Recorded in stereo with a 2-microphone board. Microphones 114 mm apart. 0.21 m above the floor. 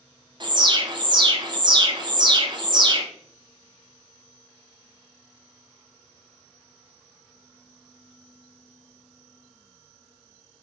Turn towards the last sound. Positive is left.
turn(degrees=-40)  # may be behind; listen again after turning